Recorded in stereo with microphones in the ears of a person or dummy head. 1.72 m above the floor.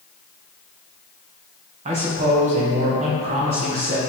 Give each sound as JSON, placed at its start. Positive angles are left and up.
{"t": 1.9, "sound": "a man speaking", "side_deg": -40, "distance_m": 1.6}